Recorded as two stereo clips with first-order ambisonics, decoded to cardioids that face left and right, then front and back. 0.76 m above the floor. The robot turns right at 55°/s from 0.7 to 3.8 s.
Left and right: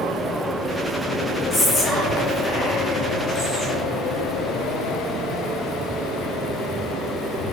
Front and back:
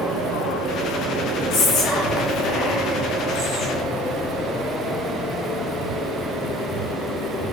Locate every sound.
1.5 s whispering: 15° left, 1.4 m; by 3.8 s 145° left, 1.4 m